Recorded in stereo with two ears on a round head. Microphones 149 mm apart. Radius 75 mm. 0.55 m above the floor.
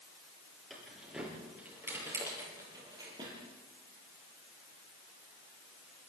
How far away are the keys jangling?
About 7.5 m.